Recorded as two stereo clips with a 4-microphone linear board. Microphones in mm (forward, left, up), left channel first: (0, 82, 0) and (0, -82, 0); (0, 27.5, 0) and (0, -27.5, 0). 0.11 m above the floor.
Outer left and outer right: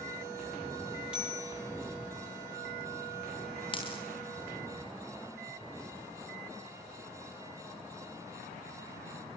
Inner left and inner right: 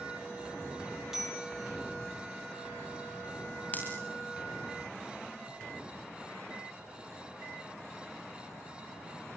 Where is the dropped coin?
30° left (ahead or behind), 3.5 m.